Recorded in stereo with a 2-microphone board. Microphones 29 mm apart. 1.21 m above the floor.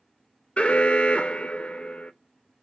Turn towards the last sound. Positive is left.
turn(degrees=40)  # may be behind; listen again after turning